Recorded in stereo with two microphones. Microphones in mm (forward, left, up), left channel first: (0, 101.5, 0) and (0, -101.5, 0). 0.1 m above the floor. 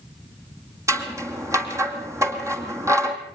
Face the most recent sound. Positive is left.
turn(degrees=-15)  # may be behind; listen again after turning